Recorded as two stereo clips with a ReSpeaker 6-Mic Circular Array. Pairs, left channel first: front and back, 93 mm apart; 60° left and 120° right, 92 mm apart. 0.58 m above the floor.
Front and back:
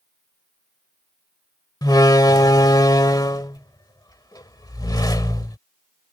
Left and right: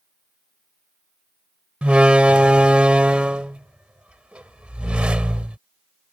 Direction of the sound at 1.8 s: 45° right.